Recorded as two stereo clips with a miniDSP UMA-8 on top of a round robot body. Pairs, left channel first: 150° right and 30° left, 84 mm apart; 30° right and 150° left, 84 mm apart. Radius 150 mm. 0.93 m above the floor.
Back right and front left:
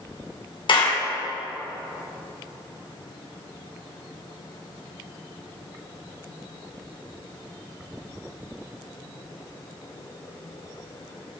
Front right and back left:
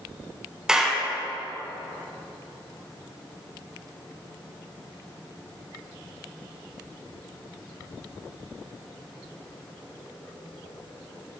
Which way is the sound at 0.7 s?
125° right.